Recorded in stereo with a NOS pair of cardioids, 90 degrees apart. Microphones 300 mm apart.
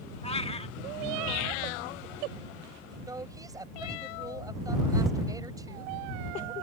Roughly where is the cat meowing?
Ahead.